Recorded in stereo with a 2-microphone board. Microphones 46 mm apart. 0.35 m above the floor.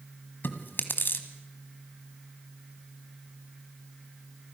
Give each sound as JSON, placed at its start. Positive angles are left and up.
{"t": 0.4, "sound": "chewing", "side_deg": 55, "distance_m": 1.8}